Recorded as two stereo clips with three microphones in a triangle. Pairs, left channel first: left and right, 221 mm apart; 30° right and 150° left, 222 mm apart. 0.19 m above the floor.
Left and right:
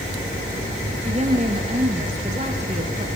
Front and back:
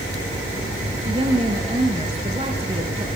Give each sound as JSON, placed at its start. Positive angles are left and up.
{"t": 0.9, "sound": "a woman speaking", "azimuth_deg": -145, "distance_m": 3.5}